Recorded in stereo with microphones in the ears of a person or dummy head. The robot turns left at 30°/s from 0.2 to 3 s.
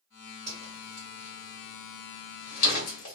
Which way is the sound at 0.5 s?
15° left (ahead or behind).